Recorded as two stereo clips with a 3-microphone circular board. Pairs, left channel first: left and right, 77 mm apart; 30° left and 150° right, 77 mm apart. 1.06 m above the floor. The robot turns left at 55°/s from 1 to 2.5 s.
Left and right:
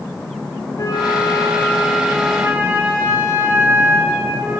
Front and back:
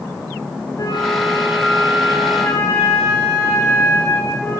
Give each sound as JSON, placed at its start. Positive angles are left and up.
{"t": 0.8, "sound": "a flute", "azimuth_deg": 60, "distance_m": 2.5}